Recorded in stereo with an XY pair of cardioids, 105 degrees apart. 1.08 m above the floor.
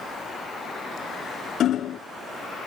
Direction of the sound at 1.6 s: 65° left.